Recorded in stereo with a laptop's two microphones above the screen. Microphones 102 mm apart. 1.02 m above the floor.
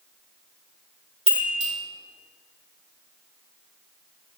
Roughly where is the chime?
Right.